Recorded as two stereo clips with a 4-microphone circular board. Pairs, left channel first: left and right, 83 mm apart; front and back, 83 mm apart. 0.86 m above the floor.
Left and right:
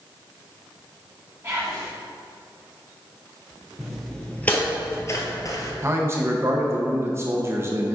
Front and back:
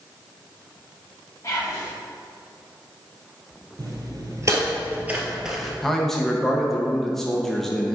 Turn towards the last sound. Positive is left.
turn(degrees=-85)